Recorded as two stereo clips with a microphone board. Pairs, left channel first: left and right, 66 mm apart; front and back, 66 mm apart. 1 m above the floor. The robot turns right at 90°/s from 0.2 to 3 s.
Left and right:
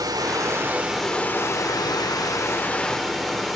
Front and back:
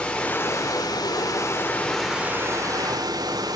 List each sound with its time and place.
0.0 s running water: 75° right, 2.5 m; by 3.6 s straight behind, 2.5 m